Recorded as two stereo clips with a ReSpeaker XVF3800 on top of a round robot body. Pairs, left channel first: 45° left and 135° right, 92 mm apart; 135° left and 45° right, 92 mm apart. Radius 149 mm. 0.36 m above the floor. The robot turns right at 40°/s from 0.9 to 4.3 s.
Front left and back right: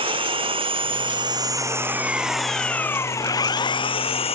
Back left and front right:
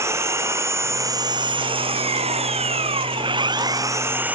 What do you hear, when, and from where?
0.0 s an engine running: 105° right; by 4.4 s 30° left